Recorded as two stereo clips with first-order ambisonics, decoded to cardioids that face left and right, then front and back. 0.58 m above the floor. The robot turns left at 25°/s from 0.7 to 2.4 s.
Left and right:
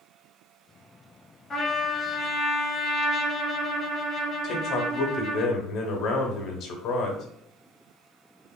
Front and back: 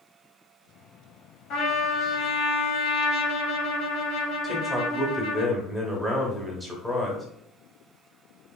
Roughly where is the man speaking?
Left.